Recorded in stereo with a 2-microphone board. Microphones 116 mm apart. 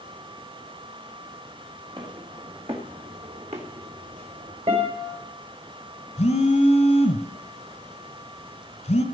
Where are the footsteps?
40° right (ahead or behind), 3.5 m; by 4.6 s 70° right (ahead or behind), 3.5 m.